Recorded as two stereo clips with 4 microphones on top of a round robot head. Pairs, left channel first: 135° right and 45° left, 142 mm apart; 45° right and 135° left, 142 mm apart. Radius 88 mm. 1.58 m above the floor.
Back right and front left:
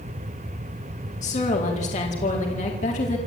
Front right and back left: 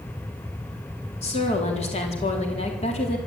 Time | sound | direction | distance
1.2 | a woman speaking | 90° right | 4 m